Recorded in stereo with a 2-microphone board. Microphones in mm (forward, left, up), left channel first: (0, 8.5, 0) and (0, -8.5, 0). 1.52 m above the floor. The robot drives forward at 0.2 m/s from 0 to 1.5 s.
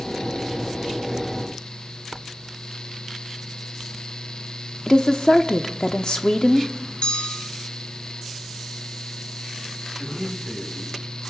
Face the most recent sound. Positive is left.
turn(degrees=65)  # may be behind; listen again after turning